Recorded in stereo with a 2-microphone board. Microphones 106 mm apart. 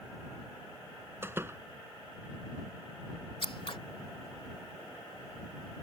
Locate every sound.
1.2 s a door slam: 20° right (ahead or behind)
3.4 s scissors: 60° left (ahead or behind)